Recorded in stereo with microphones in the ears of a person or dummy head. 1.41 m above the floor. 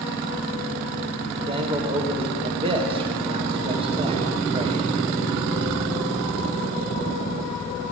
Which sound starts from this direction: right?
A man speaking, at 1.3 s.